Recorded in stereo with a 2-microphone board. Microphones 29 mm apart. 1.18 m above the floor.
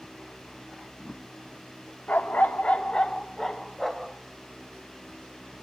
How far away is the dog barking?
About 1.2 m.